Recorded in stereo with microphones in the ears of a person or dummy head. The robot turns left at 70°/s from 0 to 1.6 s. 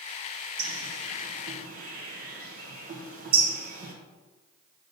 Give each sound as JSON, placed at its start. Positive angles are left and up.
{"t": 0.6, "sound": "a bird", "side_deg": -55, "distance_m": 1.3}